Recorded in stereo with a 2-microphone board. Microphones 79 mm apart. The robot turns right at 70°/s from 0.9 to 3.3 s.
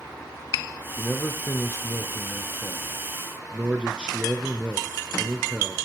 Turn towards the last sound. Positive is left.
turn(degrees=-160)